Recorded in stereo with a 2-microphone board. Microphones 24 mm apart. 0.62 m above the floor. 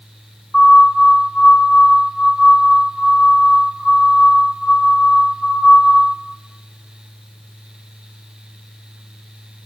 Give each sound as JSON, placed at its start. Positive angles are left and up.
{"t": 0.5, "sound": "a siren", "side_deg": 30, "distance_m": 7.5}